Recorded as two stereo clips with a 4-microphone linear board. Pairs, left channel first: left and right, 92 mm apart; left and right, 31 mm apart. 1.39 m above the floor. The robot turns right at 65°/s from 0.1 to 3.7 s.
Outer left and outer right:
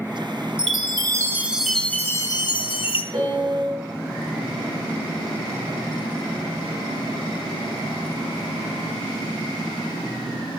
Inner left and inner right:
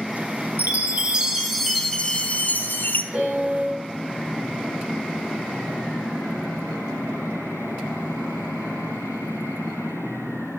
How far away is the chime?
About 1.0 m.